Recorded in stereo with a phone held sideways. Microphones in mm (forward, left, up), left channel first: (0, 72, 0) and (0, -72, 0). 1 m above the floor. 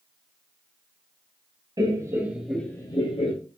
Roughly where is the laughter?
Right.